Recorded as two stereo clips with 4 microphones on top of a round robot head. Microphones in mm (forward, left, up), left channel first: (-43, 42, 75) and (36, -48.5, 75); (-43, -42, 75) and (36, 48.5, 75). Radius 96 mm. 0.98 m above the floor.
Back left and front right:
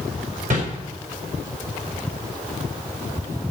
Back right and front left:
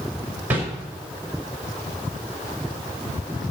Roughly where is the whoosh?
Ahead right.